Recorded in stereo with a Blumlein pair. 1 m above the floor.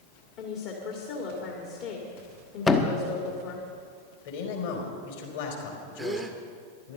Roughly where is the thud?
Ahead.